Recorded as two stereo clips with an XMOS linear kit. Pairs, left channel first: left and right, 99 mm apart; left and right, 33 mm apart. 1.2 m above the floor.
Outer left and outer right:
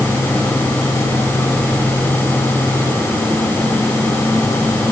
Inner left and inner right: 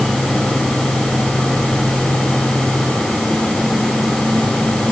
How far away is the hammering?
No hammering in this recording.